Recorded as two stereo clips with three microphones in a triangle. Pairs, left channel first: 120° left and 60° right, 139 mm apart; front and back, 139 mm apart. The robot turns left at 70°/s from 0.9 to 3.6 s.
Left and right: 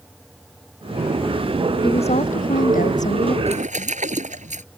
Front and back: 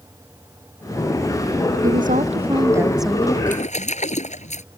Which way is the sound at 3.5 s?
20° right.